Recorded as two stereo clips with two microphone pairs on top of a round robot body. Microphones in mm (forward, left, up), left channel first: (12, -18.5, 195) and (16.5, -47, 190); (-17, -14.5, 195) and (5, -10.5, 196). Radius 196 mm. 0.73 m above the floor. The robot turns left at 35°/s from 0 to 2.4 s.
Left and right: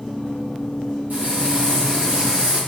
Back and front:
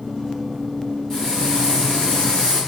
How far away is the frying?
About 1.4 m.